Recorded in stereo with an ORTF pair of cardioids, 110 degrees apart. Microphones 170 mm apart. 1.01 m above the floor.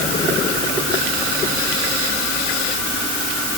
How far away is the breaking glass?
I don't hear breaking glass.